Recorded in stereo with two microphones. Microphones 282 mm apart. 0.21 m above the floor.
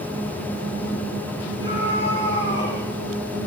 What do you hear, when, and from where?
1.6 s a scream: 45° left (ahead or behind), 7.5 m; by 2.8 s 40° left (ahead or behind), 7.5 m